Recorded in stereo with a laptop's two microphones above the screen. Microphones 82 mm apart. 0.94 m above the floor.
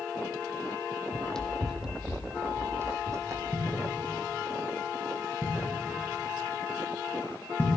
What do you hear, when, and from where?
1.1 s running footsteps: 15° left (ahead or behind), 1.4 m; by 3.4 s 40° right (ahead or behind), 1.9 m
3.5 s a thud: 25° left (ahead or behind), 7 m